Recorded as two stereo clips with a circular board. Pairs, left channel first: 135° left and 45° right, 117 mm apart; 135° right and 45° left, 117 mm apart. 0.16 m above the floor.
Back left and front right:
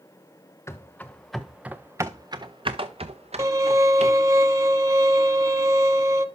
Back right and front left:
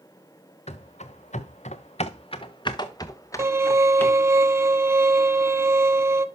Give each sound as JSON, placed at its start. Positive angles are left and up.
{"t": 0.7, "sound": "running footsteps", "azimuth_deg": -155, "distance_m": 1.0}
{"t": 3.4, "sound": "a violin", "azimuth_deg": -5, "distance_m": 0.5}